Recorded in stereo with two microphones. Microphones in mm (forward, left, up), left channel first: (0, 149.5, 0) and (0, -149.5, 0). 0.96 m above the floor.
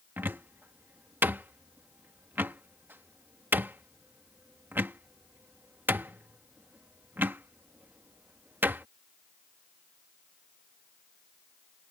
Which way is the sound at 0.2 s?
5° right (ahead or behind).